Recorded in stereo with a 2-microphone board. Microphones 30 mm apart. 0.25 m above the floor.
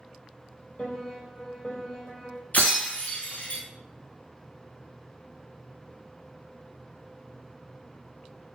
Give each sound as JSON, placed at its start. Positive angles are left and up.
{"t": 0.8, "sound": "a piano", "side_deg": 35, "distance_m": 1.9}
{"t": 2.5, "sound": "breaking glass", "side_deg": 60, "distance_m": 1.2}